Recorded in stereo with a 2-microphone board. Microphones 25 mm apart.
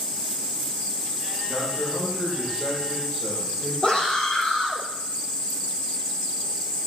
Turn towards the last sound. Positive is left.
turn(degrees=40)  # may be behind; listen again after turning